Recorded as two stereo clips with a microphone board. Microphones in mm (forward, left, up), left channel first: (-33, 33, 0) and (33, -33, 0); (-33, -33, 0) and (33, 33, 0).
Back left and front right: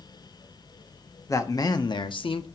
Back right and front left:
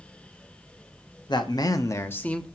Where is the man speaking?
170° right, 0.9 m; by 2.5 s 145° left, 0.6 m.